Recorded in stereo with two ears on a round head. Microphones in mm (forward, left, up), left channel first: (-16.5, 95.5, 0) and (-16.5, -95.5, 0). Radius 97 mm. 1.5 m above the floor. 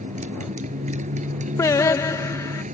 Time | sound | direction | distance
0.0 | a motorcycle | 35° right (ahead or behind) | ?
1.6 | singing | 15° left (ahead or behind) | ?